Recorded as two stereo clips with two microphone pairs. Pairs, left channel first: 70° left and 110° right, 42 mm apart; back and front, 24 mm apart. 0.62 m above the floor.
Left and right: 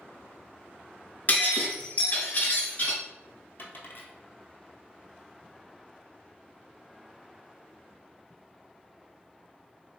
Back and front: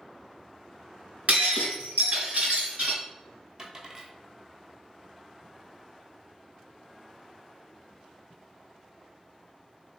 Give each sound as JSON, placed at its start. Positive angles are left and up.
{"t": 1.3, "sound": "breaking glass", "azimuth_deg": 25, "distance_m": 1.2}
{"t": 3.6, "sound": "a dropped coin", "azimuth_deg": 60, "distance_m": 0.9}